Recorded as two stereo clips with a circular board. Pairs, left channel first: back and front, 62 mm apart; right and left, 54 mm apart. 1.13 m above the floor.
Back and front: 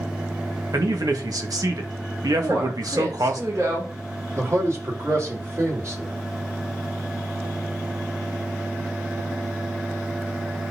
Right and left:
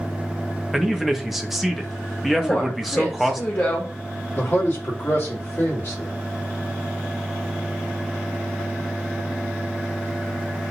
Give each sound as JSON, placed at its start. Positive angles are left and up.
{"t": 0.7, "sound": "a man speaking", "azimuth_deg": 5, "distance_m": 1.6}
{"t": 2.4, "sound": "a woman speaking", "azimuth_deg": -35, "distance_m": 3.0}
{"t": 4.3, "sound": "a man speaking", "azimuth_deg": -45, "distance_m": 4.0}